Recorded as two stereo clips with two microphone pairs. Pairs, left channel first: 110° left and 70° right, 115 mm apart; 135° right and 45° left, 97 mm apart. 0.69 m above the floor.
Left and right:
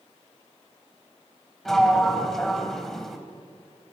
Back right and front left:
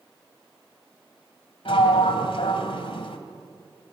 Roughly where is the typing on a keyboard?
No typing on a keyboard in this recording.